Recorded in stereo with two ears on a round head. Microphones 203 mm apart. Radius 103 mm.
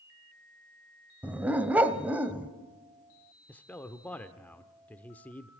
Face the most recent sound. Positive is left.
turn(degrees=5)  # may be behind; listen again after turning